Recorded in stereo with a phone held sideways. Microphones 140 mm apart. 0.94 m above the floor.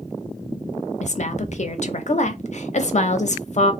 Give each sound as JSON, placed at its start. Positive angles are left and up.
{"t": 1.0, "sound": "a woman speaking", "side_deg": 55, "distance_m": 0.5}